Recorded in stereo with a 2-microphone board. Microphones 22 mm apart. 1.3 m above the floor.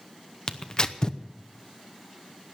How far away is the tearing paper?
About 0.8 m.